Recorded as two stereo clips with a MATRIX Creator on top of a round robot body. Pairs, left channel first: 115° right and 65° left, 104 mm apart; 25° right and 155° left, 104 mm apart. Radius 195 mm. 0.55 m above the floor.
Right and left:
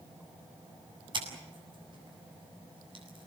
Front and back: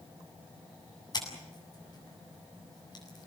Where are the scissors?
25° left, 8 m.